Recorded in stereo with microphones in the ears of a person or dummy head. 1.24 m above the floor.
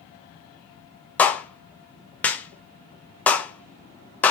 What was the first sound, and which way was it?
A clap, 10° left (ahead or behind).